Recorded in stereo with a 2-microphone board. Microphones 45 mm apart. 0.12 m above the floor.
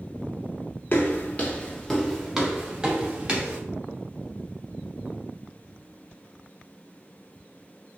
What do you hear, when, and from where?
0.9 s footsteps: 50° left (ahead or behind), 1.0 m; by 3.6 s 30° right (ahead or behind), 1.8 m